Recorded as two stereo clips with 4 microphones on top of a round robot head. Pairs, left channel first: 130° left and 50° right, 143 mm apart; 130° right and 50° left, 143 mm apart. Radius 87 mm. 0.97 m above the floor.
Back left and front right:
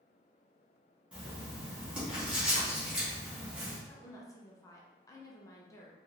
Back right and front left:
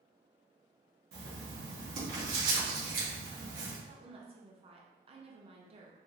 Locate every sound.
1.1 s writing: 35° left, 1.8 m
3.9 s a woman speaking: 75° left, 0.9 m